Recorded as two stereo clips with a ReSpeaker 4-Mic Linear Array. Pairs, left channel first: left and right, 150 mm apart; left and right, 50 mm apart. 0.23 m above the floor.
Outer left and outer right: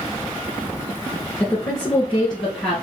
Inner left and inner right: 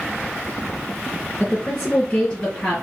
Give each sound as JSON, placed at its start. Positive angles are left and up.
{"t": 1.4, "sound": "a woman speaking", "side_deg": 10, "distance_m": 2.5}